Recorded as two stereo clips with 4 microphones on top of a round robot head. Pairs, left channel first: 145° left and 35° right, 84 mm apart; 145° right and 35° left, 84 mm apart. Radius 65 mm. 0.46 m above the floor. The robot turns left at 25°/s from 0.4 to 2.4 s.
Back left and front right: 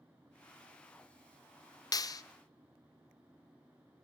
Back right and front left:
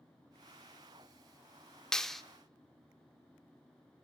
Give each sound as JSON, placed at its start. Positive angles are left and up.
{"t": 1.9, "sound": "a clap", "azimuth_deg": 130, "distance_m": 0.7}